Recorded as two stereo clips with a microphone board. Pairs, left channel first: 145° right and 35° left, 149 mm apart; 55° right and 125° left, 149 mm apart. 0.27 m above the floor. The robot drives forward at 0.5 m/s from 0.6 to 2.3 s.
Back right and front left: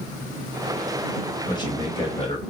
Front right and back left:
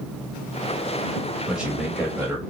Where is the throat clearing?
I don't hear throat clearing.